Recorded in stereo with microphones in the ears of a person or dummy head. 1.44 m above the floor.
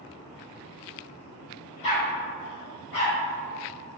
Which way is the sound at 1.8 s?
35° left (ahead or behind).